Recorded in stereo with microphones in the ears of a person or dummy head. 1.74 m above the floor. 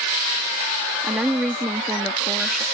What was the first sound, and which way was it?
A woman speaking, 5° right (ahead or behind).